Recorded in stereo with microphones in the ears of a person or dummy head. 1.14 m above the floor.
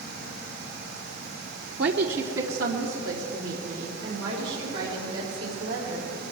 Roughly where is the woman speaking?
Right.